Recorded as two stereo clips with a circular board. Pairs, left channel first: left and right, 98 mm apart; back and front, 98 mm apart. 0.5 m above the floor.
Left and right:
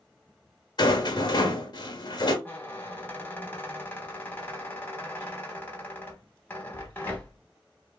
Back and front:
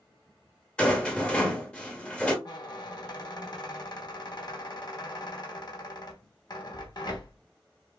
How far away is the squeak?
About 1.0 m.